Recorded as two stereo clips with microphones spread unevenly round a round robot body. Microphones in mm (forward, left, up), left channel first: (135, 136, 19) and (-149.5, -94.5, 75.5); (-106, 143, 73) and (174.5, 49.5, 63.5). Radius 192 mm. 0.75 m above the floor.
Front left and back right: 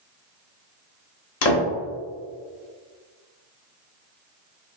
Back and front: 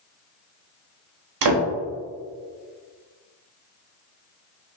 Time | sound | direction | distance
1.4 | a door slam | 5° right | 1.1 m